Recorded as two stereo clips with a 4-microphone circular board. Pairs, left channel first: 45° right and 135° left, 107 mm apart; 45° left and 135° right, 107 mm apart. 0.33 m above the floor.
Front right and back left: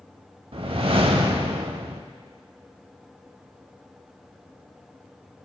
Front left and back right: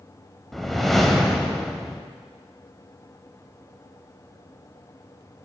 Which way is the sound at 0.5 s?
135° left.